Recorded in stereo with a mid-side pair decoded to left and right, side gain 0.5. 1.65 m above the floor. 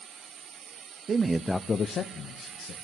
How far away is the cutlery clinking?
I don't hear cutlery clinking.